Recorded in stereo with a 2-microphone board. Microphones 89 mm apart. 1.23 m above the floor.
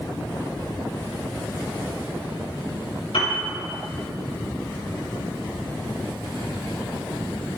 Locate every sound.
3.1 s a piano: 75° left (ahead or behind), 4 m